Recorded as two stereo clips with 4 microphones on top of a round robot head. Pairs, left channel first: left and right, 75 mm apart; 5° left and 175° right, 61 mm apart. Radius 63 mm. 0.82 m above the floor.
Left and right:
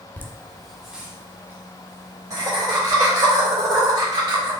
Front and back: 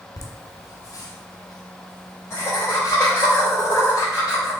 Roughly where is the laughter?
Ahead left.